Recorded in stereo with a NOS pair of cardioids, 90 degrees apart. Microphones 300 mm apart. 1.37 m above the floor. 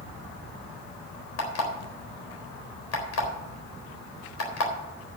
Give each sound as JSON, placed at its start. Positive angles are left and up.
{"t": 1.4, "sound": "an alarm clock", "azimuth_deg": 55, "distance_m": 4.0}